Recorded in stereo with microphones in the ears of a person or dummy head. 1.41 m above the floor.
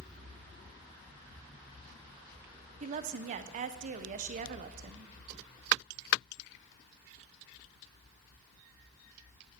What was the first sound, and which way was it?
A woman speaking, 40° right (ahead or behind).